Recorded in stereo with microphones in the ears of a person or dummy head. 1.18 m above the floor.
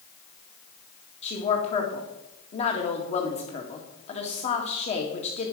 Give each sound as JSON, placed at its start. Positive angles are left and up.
{"t": 1.2, "sound": "a woman speaking", "side_deg": 35, "distance_m": 1.9}